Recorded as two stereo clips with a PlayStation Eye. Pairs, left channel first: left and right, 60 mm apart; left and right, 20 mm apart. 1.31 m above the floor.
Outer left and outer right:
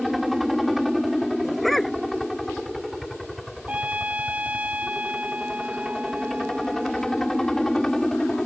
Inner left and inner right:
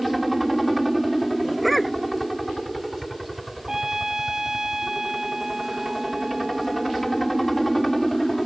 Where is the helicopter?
5° right (ahead or behind); by 8.5 s 5° left (ahead or behind).